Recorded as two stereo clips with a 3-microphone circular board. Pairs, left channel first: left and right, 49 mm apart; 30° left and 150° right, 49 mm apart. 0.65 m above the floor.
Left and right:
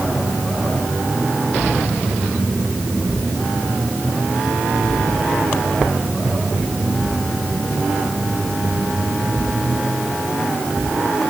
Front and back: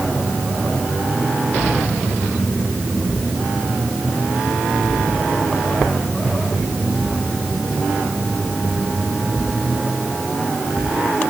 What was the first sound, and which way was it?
Only background noise.